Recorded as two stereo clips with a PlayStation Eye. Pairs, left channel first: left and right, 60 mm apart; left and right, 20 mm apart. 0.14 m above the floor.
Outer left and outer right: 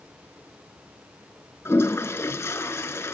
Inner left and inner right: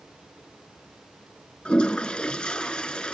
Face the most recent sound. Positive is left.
turn(degrees=50)  # may be behind; listen again after turning